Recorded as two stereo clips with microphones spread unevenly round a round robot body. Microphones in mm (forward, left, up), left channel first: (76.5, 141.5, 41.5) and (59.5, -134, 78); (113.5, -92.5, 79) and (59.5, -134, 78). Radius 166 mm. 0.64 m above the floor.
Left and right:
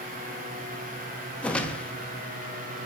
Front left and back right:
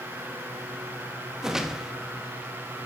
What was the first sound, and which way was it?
A whoosh, 145° left.